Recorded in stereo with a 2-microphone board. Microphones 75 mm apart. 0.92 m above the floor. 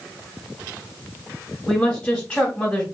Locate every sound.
1.7 s a woman speaking: 10° left (ahead or behind), 1.3 m